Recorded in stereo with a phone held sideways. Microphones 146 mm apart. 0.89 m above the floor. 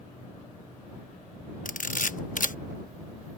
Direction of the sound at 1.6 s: 65° left (ahead or behind).